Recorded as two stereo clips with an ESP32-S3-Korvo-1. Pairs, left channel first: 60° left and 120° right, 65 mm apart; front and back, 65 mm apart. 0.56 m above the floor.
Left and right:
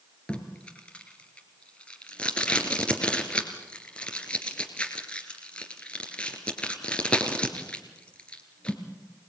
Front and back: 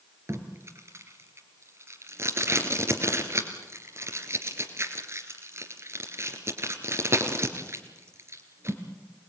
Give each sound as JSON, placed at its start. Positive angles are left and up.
{"t": 0.3, "sound": "tape being pulled", "azimuth_deg": 135, "distance_m": 2.5}